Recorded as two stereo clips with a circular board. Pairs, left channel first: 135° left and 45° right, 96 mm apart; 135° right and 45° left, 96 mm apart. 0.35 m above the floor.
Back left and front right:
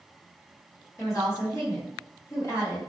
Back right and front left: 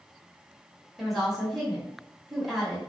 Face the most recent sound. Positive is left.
turn(degrees=135)